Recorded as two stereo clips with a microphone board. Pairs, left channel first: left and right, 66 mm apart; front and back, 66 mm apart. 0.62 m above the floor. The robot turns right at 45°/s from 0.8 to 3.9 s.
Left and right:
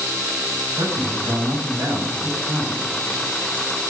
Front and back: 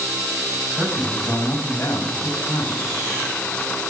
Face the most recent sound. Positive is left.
turn(degrees=40)